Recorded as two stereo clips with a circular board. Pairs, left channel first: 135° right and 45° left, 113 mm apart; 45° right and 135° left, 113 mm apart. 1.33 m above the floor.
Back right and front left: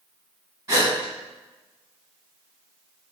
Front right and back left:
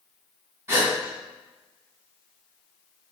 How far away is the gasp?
About 1.4 m.